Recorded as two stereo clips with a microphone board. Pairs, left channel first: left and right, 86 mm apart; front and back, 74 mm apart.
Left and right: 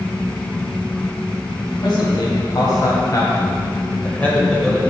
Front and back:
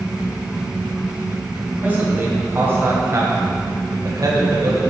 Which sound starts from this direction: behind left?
A man speaking, at 1.8 s.